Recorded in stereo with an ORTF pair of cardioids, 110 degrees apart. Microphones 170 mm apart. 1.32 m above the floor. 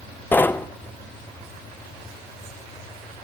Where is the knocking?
10° left, 0.7 m.